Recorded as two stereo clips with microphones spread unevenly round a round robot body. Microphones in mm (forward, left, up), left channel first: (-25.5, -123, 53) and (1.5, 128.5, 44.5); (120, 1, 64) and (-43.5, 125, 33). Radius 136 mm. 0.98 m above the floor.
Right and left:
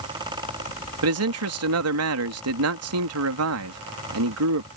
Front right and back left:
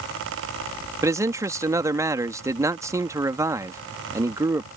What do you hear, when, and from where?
1.0 s a man speaking: 70° left